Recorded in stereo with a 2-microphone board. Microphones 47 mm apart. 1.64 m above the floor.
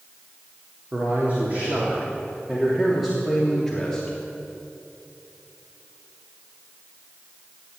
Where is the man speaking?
40° right (ahead or behind), 3 m; by 4.2 s 15° left (ahead or behind), 3 m.